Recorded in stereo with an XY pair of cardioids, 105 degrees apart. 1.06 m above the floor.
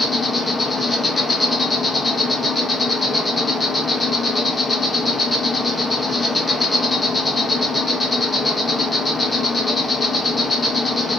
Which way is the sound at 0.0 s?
15° left.